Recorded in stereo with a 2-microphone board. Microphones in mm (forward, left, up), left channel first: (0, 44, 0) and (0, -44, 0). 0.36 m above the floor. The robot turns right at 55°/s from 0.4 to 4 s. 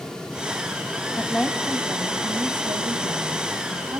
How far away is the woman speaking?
About 2.5 m.